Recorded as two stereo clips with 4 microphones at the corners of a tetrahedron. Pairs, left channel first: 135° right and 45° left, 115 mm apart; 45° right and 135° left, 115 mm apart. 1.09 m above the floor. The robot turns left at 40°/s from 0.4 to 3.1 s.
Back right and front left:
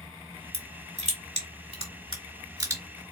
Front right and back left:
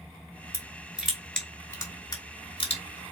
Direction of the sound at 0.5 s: 70° left.